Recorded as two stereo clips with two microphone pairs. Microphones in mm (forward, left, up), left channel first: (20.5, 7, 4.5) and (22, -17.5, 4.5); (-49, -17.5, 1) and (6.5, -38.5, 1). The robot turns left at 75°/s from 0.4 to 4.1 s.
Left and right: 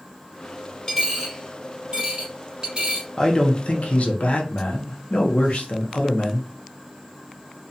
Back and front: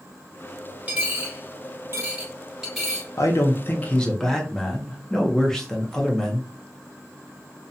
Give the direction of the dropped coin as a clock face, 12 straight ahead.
11 o'clock.